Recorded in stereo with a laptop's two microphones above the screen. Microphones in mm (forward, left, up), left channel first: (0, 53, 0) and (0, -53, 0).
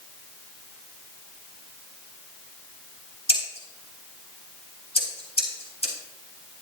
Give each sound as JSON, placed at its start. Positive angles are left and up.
{"t": 3.3, "sound": "scissors", "side_deg": 80, "distance_m": 3.5}